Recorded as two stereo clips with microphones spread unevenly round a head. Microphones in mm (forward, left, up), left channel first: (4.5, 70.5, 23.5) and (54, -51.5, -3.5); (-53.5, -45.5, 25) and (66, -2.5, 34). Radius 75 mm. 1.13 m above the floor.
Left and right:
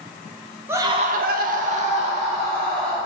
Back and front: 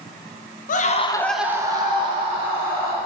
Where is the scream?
145° right, 0.8 m; by 3.0 s 20° right, 2.5 m.